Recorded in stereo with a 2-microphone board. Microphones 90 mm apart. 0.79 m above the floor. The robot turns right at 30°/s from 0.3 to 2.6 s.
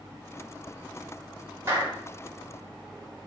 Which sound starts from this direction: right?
A clap, at 1.7 s.